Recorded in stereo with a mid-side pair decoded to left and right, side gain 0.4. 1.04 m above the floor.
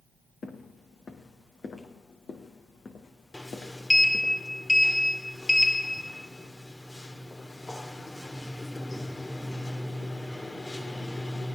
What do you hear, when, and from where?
0.4 s footsteps: 50° left, 3.5 m
3.3 s a sliding door: 20° left, 2 m